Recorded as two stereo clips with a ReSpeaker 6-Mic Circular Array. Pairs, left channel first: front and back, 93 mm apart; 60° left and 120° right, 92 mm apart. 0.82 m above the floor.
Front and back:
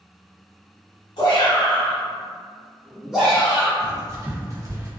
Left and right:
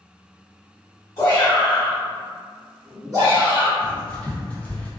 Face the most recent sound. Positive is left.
turn(degrees=135)